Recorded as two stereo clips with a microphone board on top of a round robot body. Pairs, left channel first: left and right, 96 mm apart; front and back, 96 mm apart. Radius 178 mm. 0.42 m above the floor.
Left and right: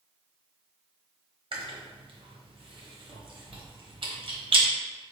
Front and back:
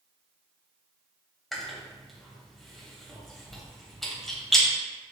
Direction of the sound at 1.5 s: 85° right.